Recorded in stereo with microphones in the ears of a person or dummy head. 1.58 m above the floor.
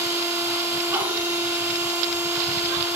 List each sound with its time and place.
0.0 s a machine running: 10° right (ahead or behind), 2 m